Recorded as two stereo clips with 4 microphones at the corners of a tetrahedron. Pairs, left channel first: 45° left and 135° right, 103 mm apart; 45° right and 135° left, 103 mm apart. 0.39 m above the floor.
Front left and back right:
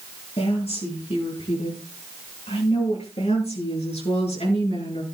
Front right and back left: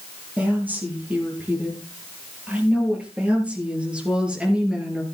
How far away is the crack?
I don't hear a crack.